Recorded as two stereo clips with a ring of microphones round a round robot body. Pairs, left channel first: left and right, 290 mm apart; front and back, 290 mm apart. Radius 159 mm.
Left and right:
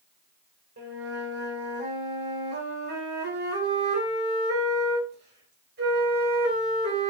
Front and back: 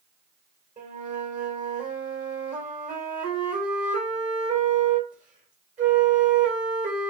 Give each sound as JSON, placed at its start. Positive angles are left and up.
{"t": 0.8, "sound": "a flute", "azimuth_deg": -125, "distance_m": 1.8}